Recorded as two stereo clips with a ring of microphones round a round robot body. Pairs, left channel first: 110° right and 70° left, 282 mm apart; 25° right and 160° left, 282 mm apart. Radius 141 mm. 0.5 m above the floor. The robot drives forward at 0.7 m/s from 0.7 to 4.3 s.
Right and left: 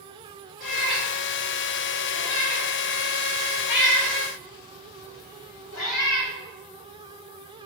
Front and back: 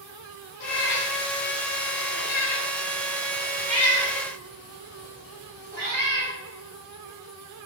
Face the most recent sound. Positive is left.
turn(degrees=-150)